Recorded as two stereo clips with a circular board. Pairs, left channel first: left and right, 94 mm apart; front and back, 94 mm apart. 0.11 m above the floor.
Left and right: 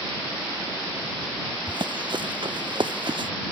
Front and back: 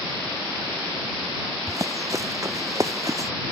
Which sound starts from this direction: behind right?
Running footsteps, at 1.7 s.